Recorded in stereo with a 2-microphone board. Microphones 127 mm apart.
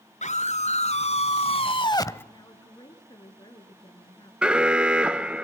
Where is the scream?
70° left (ahead or behind), 3 m; by 2.2 s 15° left (ahead or behind), 1.0 m.